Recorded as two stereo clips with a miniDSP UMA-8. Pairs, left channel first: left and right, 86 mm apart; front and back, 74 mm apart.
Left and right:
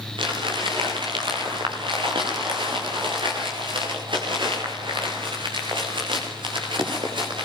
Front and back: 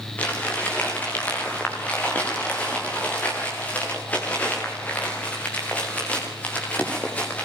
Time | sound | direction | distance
0.2 | crumpling | 70° right | 8 m